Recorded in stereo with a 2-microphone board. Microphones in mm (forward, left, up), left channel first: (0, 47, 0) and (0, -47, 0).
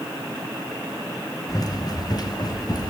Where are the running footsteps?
40° left (ahead or behind), 4 m; by 2.9 s 45° left (ahead or behind), 4.5 m.